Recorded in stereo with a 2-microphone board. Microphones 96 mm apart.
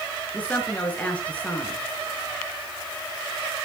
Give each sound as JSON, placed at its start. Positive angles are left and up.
{"t": 0.3, "sound": "a woman speaking", "side_deg": 15, "distance_m": 4.0}